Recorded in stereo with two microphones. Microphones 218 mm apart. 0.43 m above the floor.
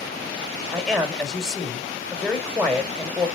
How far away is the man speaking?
About 2 m.